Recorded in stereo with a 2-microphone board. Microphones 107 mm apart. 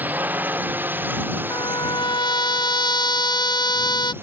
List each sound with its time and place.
0.0 s a drone: 15° right (ahead or behind); by 4.2 s 20° right (ahead or behind)
1.5 s a trumpet: 40° left (ahead or behind)